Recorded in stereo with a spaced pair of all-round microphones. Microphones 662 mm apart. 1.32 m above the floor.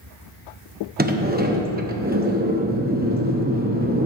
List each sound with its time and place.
1.0 s a sliding door: 15° right (ahead or behind), 0.7 m